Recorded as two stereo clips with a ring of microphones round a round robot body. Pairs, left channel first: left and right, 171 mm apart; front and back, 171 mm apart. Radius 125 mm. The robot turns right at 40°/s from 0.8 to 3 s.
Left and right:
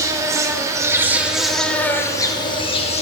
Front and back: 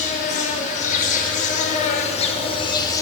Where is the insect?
25° right, 0.7 m; by 3.0 s 60° left, 0.7 m.